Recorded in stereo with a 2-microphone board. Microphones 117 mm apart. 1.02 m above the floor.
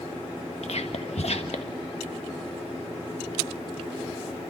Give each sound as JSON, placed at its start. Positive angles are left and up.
{"t": 0.6, "sound": "whispering", "side_deg": 65, "distance_m": 1.5}